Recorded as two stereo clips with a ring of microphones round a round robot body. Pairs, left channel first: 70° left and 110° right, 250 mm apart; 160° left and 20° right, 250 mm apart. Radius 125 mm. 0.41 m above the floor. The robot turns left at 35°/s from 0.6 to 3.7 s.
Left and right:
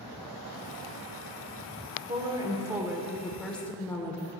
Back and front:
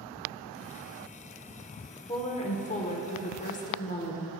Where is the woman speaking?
160° right, 0.8 m; by 4.3 s 145° left, 0.8 m.